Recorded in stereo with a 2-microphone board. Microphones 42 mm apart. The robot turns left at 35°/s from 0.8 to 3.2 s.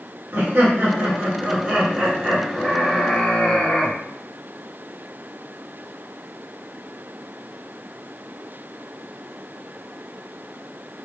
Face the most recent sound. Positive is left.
turn(degrees=155)